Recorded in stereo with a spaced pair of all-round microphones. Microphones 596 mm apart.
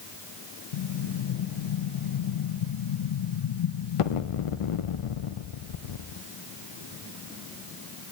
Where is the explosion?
60° left (ahead or behind), 0.6 m.